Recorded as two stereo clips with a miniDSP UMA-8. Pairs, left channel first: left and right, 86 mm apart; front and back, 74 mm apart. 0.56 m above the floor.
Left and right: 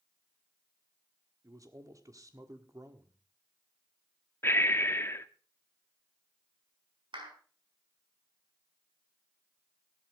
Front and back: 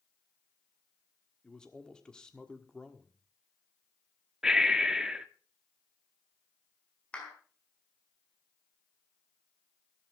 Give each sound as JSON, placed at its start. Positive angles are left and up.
{"t": 1.4, "sound": "a man speaking", "azimuth_deg": -70, "distance_m": 1.6}
{"t": 4.4, "sound": "breathing", "azimuth_deg": 105, "distance_m": 0.9}
{"t": 7.1, "sound": "a clap", "azimuth_deg": -75, "distance_m": 4.5}